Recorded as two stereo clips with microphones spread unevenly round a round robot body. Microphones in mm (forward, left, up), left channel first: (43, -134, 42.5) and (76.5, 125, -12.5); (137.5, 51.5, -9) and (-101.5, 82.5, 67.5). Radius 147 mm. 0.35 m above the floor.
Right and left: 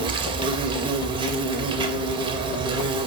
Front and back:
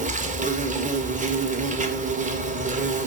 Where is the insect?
105° left, 2 m.